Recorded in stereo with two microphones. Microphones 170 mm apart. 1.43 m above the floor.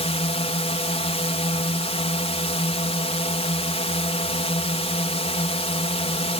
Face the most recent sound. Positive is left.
turn(degrees=35)  # may be behind; listen again after turning